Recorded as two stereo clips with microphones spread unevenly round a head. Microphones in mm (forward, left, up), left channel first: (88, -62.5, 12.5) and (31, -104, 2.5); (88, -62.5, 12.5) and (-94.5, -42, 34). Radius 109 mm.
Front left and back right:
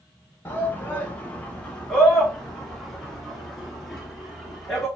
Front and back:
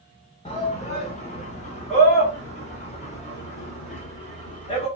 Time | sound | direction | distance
0.5 | a shout | 20° right | 0.9 m